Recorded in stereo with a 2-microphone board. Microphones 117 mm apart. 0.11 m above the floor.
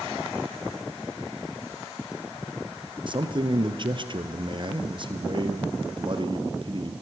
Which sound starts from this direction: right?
A man speaking, at 3.1 s.